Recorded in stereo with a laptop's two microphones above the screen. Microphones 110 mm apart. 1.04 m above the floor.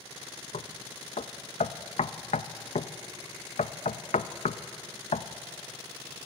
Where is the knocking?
85° left, 0.5 m.